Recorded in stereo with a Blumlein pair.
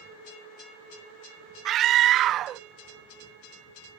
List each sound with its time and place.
1.6 s a scream: 30° right